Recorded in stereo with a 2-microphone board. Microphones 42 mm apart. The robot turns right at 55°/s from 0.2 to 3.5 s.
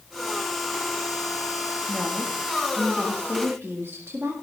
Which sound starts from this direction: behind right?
A woman speaking, at 1.9 s.